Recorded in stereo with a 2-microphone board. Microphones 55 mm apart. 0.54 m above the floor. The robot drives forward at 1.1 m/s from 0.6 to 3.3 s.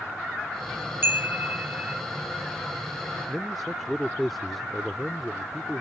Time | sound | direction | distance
1.0 | a chime | 40° right (ahead or behind) | ?
3.3 | a man speaking | centre (ahead or behind) | ?